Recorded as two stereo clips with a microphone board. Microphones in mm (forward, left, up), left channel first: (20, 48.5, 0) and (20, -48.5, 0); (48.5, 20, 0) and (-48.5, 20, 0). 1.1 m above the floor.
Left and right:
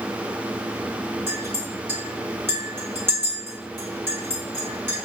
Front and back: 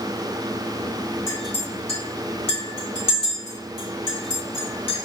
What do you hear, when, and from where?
1.3 s a clink: 25° right, 1.5 m